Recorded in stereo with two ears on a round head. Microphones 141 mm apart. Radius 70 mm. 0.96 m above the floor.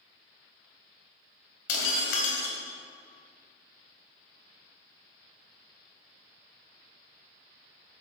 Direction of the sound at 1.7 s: 80° left.